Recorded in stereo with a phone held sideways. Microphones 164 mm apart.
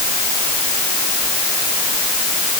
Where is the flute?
I don't hear a flute.